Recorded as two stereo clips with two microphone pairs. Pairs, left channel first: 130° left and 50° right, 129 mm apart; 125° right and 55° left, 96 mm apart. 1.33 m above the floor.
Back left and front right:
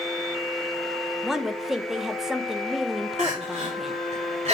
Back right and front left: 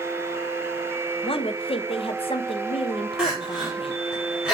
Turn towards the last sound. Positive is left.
turn(degrees=-30)